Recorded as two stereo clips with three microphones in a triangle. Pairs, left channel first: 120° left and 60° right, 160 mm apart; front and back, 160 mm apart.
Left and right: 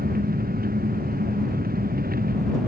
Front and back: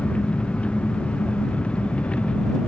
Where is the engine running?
85° right.